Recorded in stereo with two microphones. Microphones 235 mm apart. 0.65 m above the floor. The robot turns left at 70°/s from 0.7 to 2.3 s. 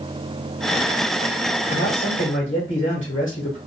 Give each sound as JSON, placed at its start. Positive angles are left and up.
{"t": 1.7, "sound": "a man speaking", "azimuth_deg": 100, "distance_m": 1.8}